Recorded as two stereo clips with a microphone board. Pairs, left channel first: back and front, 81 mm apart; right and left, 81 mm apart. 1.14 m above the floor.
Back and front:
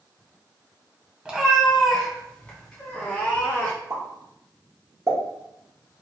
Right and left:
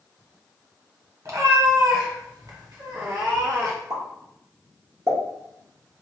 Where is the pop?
50° left, 1.6 m.